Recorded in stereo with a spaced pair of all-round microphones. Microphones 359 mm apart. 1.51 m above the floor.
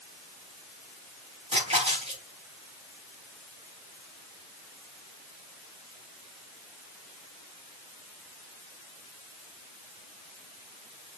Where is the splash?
15° right (ahead or behind), 5 m.